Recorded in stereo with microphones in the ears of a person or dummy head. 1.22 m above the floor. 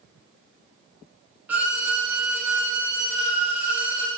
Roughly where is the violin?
Centre.